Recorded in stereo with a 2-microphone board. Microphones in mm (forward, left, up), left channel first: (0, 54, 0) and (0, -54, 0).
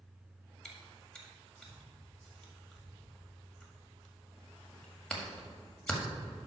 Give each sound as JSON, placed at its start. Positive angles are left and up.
{"t": 0.7, "sound": "chewing", "side_deg": 5, "distance_m": 1.5}